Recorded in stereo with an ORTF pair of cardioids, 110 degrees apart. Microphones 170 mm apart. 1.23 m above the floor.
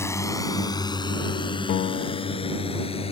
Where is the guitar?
65° left.